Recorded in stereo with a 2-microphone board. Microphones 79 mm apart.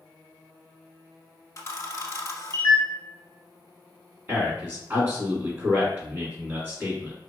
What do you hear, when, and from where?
1.6 s a camera shutter: 40° left (ahead or behind), 0.8 m
4.3 s a man speaking: 25° right (ahead or behind), 1.7 m